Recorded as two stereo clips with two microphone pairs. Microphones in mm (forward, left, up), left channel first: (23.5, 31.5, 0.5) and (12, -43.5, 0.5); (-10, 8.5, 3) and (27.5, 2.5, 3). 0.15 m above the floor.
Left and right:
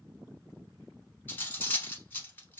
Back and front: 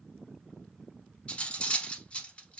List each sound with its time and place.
1.3 s cutlery clinking: 130° left, 0.8 m